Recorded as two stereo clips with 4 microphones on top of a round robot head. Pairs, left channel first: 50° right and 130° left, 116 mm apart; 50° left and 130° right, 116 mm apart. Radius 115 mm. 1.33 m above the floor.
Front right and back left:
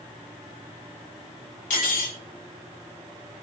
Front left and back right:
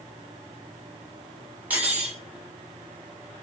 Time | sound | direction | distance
1.7 | cutlery clinking | 55° right | 3 m